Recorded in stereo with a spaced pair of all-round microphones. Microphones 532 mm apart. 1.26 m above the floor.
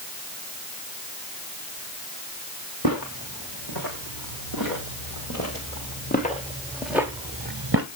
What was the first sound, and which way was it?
Footsteps, 40° left (ahead or behind).